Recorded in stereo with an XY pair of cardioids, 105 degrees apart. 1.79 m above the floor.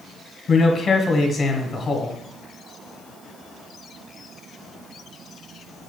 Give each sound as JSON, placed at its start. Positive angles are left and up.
{"t": 0.5, "sound": "a man speaking", "azimuth_deg": 40, "distance_m": 1.4}